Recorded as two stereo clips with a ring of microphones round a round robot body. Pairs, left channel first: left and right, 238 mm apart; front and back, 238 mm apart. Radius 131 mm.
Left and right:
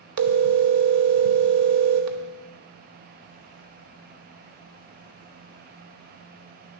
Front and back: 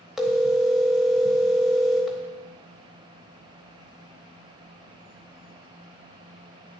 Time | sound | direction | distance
0.2 | a phone ringing | 90° right | 0.8 m